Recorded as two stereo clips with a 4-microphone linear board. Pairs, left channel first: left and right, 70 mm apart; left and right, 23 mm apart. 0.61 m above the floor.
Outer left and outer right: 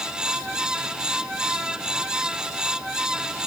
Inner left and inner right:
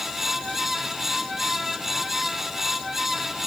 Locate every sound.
Only background noise.